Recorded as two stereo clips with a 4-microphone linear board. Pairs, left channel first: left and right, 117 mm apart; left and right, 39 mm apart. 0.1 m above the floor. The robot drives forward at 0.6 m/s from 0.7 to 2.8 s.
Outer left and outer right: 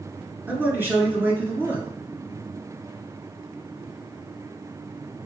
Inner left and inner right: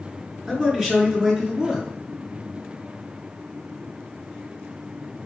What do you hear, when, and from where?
0.5 s a man speaking: 20° right (ahead or behind), 1.5 m; by 1.9 s 15° right (ahead or behind), 1.8 m